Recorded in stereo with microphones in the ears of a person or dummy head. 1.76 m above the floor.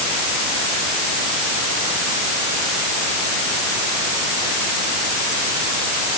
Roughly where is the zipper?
No zipper in this recording.